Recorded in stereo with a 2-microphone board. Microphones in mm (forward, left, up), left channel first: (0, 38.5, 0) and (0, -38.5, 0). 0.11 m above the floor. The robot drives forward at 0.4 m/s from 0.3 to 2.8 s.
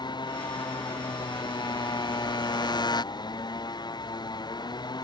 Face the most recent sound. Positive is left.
turn(degrees=70)  # may be behind; listen again after turning